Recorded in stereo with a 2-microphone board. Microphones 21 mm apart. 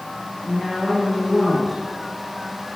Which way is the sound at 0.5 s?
5° right (ahead or behind).